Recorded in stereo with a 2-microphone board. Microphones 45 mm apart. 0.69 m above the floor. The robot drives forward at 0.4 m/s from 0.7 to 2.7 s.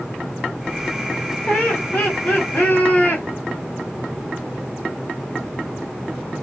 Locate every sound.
1.5 s laughter: 35° left (ahead or behind), 2 m; by 3.2 s 45° left (ahead or behind), 1.7 m